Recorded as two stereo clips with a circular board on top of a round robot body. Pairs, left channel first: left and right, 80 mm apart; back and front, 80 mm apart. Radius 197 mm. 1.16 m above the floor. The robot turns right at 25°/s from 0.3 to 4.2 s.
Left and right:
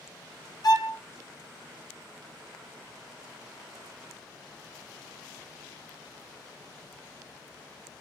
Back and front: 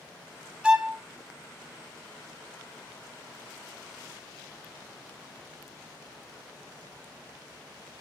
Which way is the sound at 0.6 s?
75° left.